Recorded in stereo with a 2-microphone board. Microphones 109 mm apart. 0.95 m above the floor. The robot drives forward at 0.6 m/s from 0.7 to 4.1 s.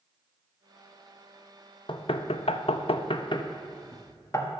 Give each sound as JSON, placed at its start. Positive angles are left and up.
{"t": 1.9, "sound": "knocking", "side_deg": 50, "distance_m": 0.8}